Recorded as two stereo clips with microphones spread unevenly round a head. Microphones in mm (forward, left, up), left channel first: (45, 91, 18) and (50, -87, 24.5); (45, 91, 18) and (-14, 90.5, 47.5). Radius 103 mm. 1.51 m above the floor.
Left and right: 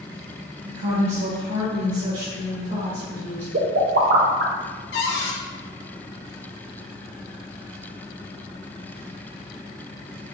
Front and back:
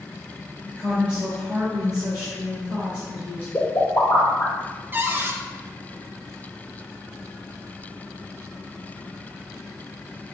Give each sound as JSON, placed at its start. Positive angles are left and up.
{"t": 0.7, "sound": "a woman speaking", "azimuth_deg": -80, "distance_m": 1.1}
{"t": 3.5, "sound": "a pop", "azimuth_deg": -80, "distance_m": 0.7}
{"t": 4.9, "sound": "a cupboard door", "azimuth_deg": 115, "distance_m": 0.8}